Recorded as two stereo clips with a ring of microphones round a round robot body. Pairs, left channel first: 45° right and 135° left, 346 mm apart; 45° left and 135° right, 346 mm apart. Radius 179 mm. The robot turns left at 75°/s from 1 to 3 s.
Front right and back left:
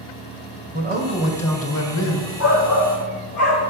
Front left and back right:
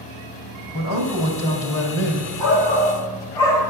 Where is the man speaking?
70° left, 2 m; by 2.3 s 30° right, 2 m.